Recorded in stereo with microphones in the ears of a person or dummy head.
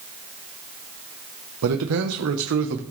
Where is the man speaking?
80° right, 1.0 m; by 2.8 s 65° right (ahead or behind), 1.1 m.